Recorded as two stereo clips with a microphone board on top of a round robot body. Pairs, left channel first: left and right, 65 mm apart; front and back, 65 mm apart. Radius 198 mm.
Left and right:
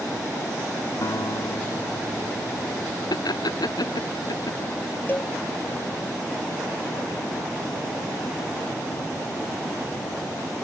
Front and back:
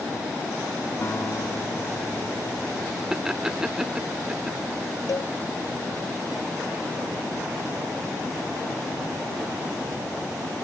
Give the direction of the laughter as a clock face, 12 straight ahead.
9 o'clock.